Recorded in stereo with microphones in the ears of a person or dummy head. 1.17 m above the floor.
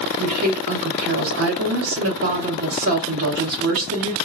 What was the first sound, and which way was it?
A woman speaking, 65° right (ahead or behind).